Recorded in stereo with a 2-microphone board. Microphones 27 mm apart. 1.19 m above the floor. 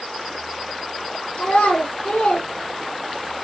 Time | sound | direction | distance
1.4 | a child speaking | 90° left | 2 m